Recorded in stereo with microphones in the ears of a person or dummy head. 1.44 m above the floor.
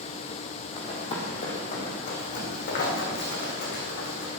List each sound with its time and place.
0.8 s running footsteps: 30° left (ahead or behind), 3 m; by 4.3 s 65° left (ahead or behind), 6.5 m